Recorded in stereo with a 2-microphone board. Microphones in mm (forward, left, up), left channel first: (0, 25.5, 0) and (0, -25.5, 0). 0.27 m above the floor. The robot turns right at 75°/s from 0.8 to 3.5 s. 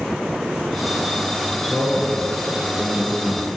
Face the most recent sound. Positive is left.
turn(degrees=120)